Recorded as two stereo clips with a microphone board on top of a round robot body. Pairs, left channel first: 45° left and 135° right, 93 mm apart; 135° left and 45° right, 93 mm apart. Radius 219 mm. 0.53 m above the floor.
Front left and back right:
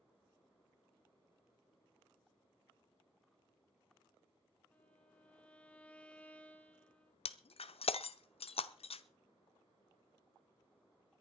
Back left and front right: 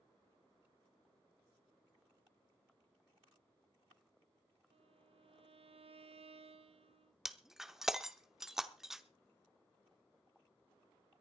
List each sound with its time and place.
4.7 s a violin: 30° right, 0.8 m
7.2 s breaking glass: 40° left, 0.9 m